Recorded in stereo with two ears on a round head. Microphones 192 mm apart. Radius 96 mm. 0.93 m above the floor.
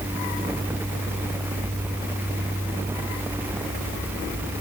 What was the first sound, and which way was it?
Only background noise.